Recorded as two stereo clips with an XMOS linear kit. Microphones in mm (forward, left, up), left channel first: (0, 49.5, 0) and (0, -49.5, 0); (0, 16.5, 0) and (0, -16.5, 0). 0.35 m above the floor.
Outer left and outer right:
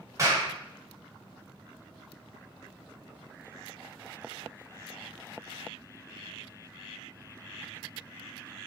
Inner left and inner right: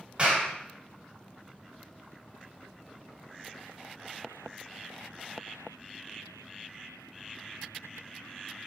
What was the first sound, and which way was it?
A clap, 30° right (ahead or behind).